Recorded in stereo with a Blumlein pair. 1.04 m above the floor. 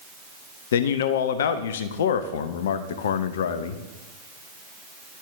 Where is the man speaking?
60° left, 0.7 m.